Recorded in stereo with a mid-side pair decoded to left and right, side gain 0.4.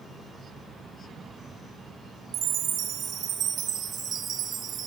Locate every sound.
2.3 s a chime: 70° right, 1.1 m